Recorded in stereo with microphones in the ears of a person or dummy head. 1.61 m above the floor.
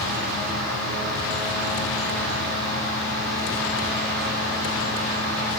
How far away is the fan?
About 5.5 m.